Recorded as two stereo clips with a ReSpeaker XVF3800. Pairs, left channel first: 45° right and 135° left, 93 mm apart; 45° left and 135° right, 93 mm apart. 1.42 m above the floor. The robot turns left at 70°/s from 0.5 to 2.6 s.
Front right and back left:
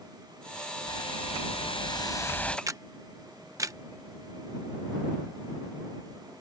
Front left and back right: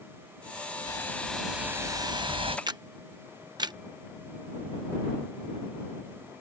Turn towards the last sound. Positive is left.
turn(degrees=-175)